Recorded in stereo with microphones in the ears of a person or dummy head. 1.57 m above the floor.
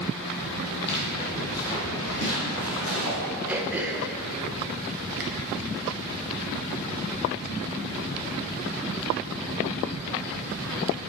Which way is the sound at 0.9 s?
35° left (ahead or behind).